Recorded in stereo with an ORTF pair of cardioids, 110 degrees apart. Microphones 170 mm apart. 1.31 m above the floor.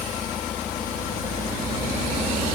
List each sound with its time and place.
Only background noise.